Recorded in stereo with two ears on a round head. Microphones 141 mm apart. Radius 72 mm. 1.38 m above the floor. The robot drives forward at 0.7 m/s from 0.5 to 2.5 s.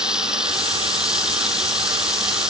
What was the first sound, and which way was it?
Running water, 5° right (ahead or behind).